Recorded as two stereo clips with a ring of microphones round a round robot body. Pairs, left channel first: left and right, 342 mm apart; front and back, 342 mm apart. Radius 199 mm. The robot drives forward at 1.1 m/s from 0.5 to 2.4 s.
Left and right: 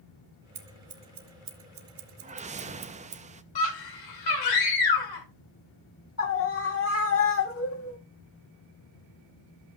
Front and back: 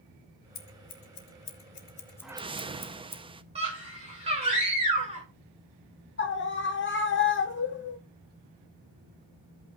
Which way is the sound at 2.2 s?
80° right.